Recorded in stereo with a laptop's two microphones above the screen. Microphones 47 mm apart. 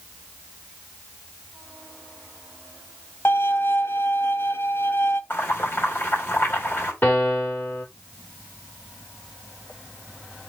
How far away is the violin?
About 0.8 m.